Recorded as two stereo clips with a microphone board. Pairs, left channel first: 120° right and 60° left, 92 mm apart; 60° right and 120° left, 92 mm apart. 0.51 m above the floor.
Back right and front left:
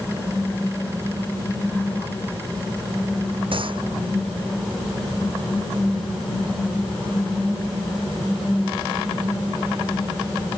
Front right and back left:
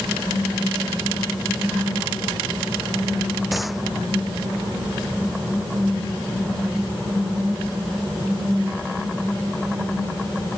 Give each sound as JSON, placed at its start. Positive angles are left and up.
{"t": 3.5, "sound": "a gunshot", "azimuth_deg": 30}